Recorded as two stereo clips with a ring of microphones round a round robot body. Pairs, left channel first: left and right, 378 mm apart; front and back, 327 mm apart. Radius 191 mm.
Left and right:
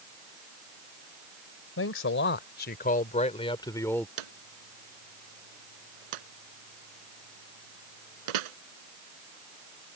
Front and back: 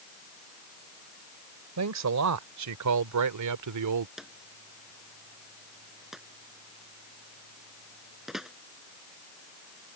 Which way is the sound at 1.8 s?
145° left.